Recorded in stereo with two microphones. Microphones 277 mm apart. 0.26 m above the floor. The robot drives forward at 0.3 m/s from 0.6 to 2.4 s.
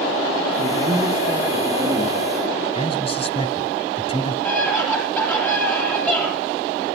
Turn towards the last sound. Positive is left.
turn(degrees=5)  # may be behind; listen again after turning